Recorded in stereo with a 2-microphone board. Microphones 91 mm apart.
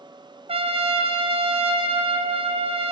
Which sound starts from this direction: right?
A trumpet, at 0.5 s.